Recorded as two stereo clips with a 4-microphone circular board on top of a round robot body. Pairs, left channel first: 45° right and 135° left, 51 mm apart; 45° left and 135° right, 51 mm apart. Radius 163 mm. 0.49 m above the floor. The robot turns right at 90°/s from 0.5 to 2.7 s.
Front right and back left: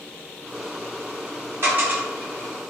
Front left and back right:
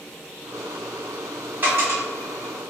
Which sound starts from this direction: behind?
A dropped coin, at 1.6 s.